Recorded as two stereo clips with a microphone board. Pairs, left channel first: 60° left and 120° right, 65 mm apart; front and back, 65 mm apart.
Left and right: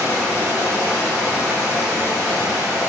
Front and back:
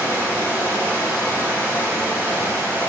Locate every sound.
0.0 s running water: 150° right, 1.0 m